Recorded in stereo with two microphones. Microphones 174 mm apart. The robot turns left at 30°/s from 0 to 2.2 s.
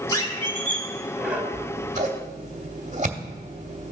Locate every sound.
0.1 s a squeak: 25° left, 1.2 m; by 1.4 s 10° right, 1.2 m
1.5 s scissors: 40° right (ahead or behind), 0.8 m; by 3.9 s 45° right (ahead or behind), 0.8 m